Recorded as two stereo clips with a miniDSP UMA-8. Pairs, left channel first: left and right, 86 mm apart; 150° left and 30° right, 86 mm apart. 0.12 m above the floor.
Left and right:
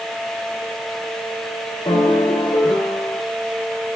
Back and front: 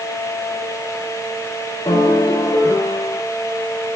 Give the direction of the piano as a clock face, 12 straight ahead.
8 o'clock.